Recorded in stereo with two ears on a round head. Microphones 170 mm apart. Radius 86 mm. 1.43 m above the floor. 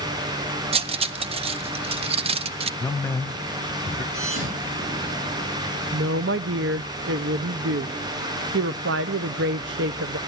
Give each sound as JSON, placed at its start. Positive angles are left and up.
{"t": 0.7, "sound": "cutlery clinking", "side_deg": -30, "distance_m": 0.5}
{"t": 2.8, "sound": "a man speaking", "side_deg": 10, "distance_m": 0.9}
{"t": 4.1, "sound": "a thud", "side_deg": -75, "distance_m": 7.5}
{"t": 5.9, "sound": "a woman speaking", "side_deg": -60, "distance_m": 0.5}